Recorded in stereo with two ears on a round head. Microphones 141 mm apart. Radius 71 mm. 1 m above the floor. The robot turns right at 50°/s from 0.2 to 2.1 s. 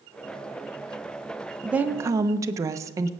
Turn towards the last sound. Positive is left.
turn(degrees=-20)  # may be behind; listen again after turning